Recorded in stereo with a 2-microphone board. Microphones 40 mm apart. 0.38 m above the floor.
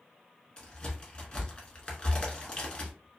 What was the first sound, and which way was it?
A crack, 25° left (ahead or behind).